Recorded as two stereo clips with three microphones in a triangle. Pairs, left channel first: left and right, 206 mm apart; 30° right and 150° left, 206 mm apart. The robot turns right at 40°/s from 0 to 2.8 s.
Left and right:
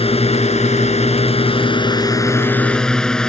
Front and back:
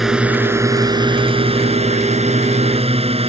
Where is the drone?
60° left; by 3.3 s 175° left.